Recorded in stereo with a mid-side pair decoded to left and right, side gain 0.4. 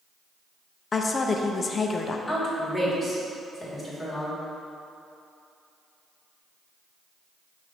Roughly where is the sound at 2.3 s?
Ahead.